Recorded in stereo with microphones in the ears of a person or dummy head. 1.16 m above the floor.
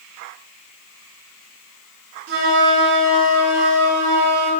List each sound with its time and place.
2.3 s a flute: 75° right (ahead or behind), 3.5 m